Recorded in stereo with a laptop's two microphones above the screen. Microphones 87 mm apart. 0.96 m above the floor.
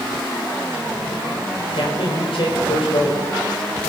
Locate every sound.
1.7 s a man speaking: 80° left, 4 m